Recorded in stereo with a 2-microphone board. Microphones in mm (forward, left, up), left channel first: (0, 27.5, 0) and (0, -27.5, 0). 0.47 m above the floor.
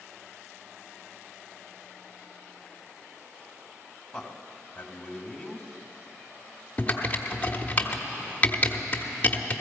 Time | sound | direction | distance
4.1 | a man speaking | 10° left (ahead or behind) | 1.3 m
6.8 | typing on a keyboard | 25° left (ahead or behind) | 1.1 m